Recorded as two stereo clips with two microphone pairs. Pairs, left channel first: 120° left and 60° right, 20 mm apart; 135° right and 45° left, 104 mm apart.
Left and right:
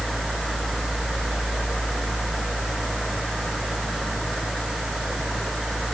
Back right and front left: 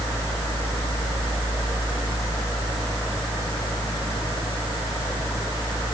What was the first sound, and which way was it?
Only background noise.